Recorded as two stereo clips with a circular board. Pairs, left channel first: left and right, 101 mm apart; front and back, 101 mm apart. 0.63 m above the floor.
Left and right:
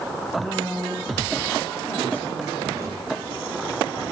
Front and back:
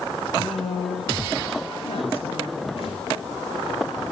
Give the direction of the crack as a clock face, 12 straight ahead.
1 o'clock.